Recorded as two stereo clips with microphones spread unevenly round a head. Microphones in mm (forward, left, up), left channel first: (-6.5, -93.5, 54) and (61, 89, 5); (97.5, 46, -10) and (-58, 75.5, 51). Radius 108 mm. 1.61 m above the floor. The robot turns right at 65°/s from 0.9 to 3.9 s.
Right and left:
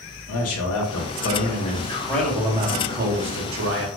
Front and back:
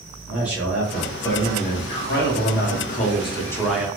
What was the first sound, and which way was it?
A man speaking, 105° right.